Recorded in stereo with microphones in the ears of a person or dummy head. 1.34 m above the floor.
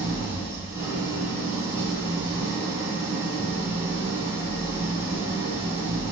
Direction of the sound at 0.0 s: 15° right (ahead or behind).